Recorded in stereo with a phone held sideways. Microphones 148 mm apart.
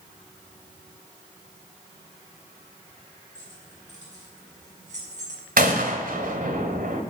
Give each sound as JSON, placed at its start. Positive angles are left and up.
{"t": 3.4, "sound": "keys jangling", "side_deg": -55, "distance_m": 8.5}
{"t": 5.6, "sound": "a gunshot", "side_deg": -80, "distance_m": 2.5}